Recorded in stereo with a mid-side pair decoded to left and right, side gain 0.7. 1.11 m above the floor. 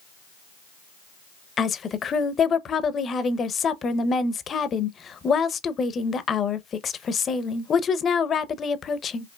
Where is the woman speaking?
30° left, 0.6 m.